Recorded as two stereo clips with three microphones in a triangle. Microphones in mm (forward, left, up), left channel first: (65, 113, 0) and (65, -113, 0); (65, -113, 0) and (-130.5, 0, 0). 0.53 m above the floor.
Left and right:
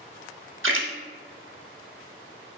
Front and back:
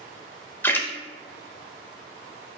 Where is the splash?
110° right, 0.6 m.